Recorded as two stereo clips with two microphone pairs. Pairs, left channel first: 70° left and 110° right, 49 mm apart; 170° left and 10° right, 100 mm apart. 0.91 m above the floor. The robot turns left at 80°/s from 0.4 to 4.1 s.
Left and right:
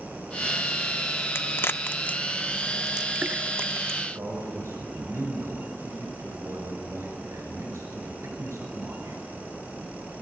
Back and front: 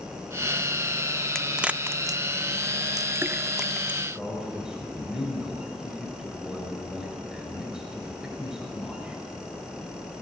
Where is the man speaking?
95° right, 5.5 m.